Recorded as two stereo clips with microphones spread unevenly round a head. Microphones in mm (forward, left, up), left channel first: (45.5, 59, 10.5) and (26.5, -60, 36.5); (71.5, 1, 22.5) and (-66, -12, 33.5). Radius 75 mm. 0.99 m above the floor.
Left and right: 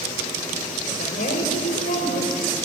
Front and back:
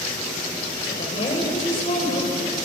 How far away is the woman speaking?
About 5 m.